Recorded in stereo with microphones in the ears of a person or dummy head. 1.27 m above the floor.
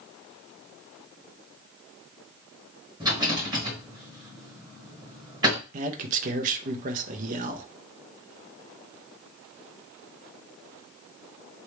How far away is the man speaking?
About 0.7 m.